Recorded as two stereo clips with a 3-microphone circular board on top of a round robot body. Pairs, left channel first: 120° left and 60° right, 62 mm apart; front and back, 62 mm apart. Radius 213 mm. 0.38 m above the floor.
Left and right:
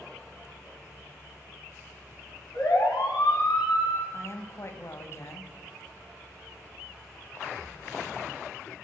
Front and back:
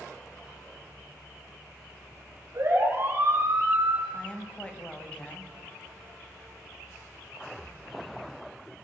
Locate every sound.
2.5 s a siren: 130° left, 8 m; by 4.0 s 135° left, 7.5 m
4.1 s a woman speaking: 75° left, 3 m